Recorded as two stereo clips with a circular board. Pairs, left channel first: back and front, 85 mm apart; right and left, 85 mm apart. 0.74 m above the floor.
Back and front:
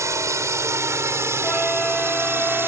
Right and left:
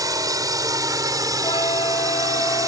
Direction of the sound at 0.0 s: 50° left.